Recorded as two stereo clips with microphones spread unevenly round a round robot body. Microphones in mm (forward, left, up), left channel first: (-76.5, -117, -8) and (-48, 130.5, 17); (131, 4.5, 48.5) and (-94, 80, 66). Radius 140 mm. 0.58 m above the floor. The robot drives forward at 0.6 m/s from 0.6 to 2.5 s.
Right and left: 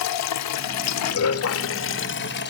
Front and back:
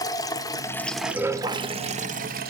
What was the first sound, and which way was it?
Running water, 95° right.